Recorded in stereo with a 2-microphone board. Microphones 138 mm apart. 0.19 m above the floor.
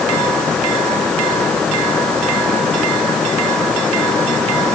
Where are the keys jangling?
No keys jangling in this recording.